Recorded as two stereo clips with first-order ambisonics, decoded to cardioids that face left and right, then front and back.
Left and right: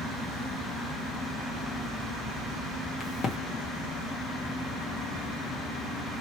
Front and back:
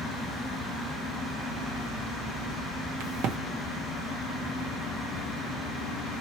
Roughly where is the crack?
Behind left.